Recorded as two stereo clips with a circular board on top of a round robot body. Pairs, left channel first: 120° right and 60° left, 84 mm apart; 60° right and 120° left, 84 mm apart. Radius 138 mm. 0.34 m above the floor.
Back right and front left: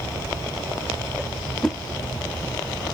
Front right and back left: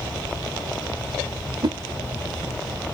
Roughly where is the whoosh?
Behind left.